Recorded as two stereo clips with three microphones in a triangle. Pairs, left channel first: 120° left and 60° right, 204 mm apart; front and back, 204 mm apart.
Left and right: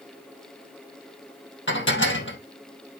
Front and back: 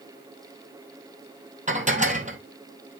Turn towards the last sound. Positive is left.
turn(degrees=130)